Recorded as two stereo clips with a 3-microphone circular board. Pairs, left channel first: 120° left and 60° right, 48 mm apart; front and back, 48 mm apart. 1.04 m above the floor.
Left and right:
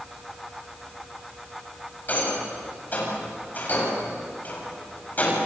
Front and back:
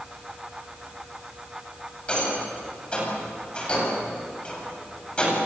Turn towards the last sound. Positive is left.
turn(degrees=65)